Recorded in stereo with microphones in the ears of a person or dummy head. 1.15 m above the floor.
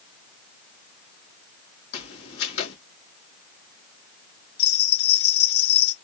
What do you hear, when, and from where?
1.9 s footsteps: 65° left (ahead or behind), 3 m
4.6 s a bell: 80° left, 3 m